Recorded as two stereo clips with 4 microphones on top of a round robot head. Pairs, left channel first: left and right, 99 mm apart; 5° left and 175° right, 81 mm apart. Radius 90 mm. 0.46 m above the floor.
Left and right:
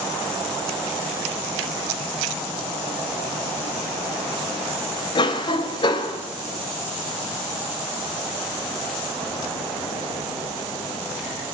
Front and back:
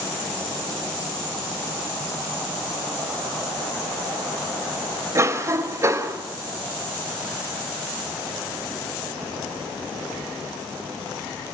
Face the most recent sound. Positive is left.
turn(degrees=130)